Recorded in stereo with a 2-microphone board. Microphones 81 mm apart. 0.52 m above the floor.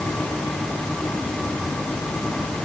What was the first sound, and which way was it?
Only background noise.